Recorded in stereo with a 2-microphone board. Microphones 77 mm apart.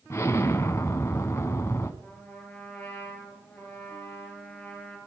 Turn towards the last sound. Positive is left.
turn(degrees=20)  # may be behind; listen again after turning